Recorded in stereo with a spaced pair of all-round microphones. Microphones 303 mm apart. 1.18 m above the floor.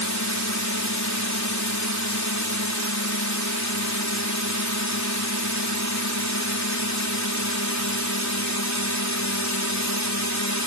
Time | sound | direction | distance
0.0 | a drone | 65° left (ahead or behind) | ?